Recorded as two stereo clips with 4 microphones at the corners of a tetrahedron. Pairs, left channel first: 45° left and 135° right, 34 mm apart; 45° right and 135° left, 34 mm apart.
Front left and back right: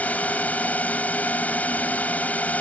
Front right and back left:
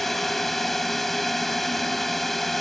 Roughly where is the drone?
Ahead left.